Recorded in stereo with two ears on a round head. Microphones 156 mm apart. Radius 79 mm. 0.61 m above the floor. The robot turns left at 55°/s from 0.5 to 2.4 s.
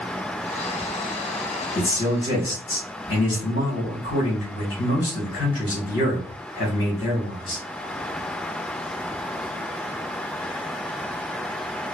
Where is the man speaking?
150° left, 1.7 m; by 7.6 s 110° left, 1.7 m.